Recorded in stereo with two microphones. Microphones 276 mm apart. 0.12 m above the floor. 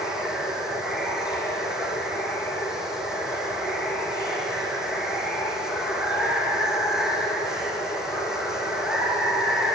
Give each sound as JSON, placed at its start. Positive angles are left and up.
{"t": 0.0, "sound": "running water", "side_deg": 0, "distance_m": 2.5}